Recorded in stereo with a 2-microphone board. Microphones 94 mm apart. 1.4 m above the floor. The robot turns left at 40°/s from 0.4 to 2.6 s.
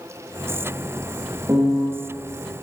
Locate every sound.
1.5 s a piano: 35° right (ahead or behind), 0.5 m; by 1.9 s 45° right (ahead or behind), 0.5 m